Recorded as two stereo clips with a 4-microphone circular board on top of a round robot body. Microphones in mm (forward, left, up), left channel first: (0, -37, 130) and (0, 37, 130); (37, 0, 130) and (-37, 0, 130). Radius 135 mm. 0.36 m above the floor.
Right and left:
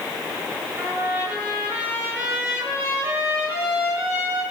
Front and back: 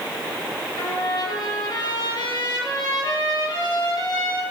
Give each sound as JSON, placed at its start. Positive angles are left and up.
{"t": 0.8, "sound": "a trumpet", "azimuth_deg": 15, "distance_m": 8.0}